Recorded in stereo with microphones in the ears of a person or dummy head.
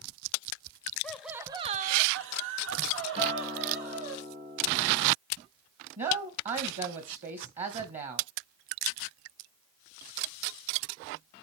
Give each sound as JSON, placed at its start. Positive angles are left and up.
{"t": 1.0, "sound": "laughter", "side_deg": 10, "distance_m": 0.8}
{"t": 3.2, "sound": "a guitar", "side_deg": -30, "distance_m": 2.5}
{"t": 6.0, "sound": "a woman speaking", "side_deg": -45, "distance_m": 1.2}